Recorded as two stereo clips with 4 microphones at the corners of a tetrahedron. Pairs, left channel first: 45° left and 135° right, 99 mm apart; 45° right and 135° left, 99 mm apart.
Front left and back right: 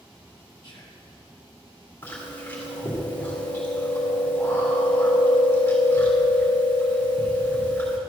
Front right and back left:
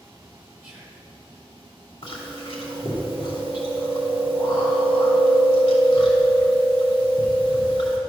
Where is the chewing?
25° right, 2.5 m.